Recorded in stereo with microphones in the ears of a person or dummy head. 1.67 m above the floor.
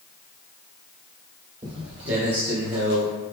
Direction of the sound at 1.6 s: 20° right (ahead or behind).